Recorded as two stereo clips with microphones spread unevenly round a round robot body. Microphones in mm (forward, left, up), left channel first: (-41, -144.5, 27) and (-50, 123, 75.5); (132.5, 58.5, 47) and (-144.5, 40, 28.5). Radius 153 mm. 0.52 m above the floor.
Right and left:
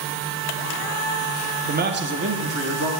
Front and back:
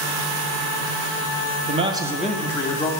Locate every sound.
1.7 s a man speaking: 150° left, 0.9 m; by 2.9 s 70° left, 1.1 m